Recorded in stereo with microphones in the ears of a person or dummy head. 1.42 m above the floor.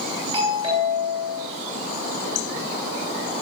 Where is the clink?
No clink in this recording.